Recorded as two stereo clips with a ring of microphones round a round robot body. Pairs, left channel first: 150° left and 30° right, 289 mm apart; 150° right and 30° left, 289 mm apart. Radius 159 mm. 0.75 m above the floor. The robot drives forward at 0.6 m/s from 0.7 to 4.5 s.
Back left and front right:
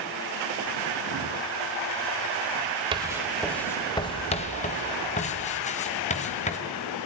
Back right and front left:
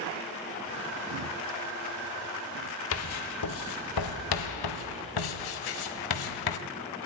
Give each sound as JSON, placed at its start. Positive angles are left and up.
{"t": 2.9, "sound": "writing", "azimuth_deg": -105, "distance_m": 1.0}